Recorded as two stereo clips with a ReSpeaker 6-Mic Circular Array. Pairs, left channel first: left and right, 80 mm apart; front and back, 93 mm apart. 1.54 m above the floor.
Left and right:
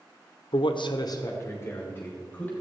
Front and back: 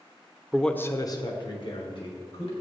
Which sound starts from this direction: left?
A man speaking, at 0.5 s.